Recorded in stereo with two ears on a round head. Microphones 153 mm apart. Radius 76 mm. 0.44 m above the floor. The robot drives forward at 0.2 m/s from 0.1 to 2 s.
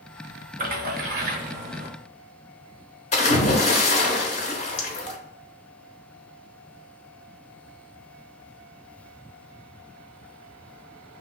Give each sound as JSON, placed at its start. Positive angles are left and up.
{"t": 0.6, "sound": "a splash", "side_deg": -50, "distance_m": 0.8}
{"t": 3.1, "sound": "a splash", "side_deg": 40, "distance_m": 0.8}